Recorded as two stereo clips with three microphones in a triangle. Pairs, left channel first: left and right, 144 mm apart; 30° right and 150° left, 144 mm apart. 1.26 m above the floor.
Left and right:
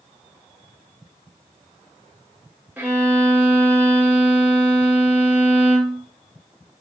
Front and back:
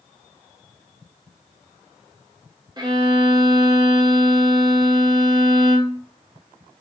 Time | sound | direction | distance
2.8 | a violin | 160° right | 0.6 m